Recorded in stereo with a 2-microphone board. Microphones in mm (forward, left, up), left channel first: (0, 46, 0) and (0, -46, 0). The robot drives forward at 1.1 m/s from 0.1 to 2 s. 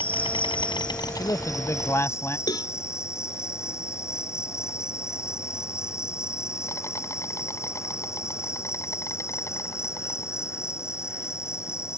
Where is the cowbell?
50° left (ahead or behind).